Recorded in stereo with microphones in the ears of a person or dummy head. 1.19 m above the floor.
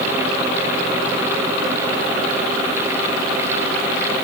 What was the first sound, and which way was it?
Only background noise.